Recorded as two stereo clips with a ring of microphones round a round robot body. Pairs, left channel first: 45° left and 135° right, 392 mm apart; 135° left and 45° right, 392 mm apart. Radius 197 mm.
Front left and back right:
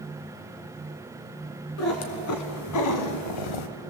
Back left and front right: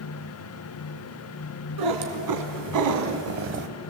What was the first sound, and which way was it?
A cat meowing, 10° right.